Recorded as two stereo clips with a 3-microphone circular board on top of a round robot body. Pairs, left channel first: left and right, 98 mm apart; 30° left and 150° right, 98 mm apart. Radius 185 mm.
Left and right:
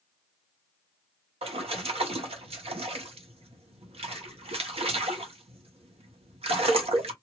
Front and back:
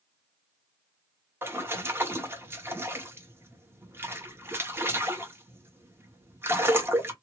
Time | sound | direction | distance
1.4 | a splash | 85° right | 1.2 m